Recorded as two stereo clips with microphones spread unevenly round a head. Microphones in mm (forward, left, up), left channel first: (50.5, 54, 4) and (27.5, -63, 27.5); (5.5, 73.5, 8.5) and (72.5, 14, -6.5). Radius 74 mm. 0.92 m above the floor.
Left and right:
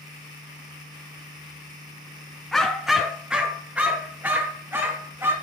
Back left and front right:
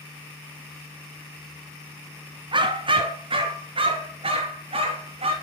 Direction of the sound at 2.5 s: 10° right.